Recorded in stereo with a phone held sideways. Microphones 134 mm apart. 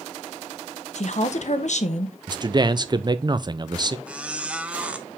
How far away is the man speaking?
About 0.6 m.